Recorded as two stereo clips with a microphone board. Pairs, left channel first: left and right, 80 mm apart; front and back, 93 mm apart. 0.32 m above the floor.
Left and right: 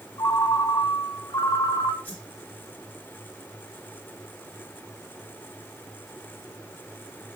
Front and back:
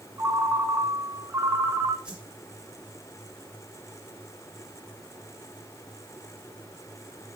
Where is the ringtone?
120° left, 1.5 m.